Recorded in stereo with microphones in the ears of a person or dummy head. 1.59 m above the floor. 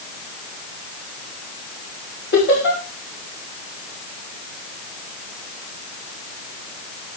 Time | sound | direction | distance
2.3 | laughter | 55° left (ahead or behind) | 3.5 m